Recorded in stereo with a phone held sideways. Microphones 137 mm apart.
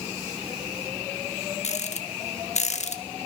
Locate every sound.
1.6 s a rattle: 60° left (ahead or behind), 1.5 m